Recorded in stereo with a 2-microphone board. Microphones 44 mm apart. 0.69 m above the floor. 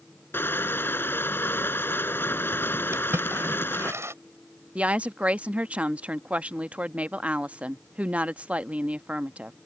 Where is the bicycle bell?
I don't hear a bicycle bell.